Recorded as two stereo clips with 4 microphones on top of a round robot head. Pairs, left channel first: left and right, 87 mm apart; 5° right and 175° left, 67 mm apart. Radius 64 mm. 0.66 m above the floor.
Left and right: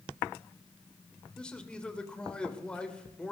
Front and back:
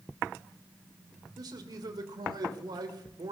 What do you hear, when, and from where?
1.4 s a man speaking: 170° left, 2.5 m